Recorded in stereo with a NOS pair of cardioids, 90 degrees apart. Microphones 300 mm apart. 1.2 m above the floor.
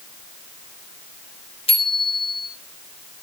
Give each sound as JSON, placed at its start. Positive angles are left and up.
{"t": 1.7, "sound": "a bicycle bell", "azimuth_deg": 20, "distance_m": 5.0}